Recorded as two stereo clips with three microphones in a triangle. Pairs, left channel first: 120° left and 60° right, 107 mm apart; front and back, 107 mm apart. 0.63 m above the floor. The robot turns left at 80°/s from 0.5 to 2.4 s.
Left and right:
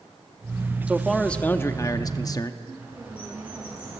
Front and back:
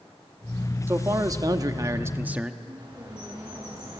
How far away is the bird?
About 8 m.